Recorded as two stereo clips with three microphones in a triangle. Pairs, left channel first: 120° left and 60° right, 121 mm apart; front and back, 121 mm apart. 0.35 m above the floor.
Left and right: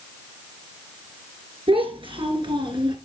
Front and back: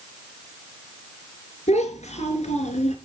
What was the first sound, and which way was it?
A child speaking, 20° right.